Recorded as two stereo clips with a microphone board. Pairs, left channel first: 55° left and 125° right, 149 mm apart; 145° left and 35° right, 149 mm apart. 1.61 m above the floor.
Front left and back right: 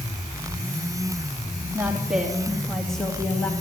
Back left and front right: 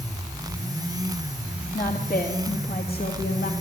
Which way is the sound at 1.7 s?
155° left.